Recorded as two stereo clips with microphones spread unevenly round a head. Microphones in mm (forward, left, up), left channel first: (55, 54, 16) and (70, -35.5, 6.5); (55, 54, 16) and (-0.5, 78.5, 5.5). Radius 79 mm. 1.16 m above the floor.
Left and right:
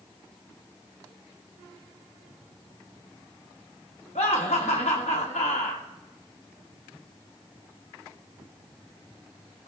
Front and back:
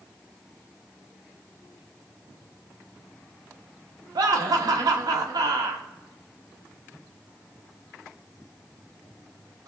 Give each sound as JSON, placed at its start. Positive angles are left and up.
{"t": 4.2, "sound": "laughter", "azimuth_deg": 150, "distance_m": 1.3}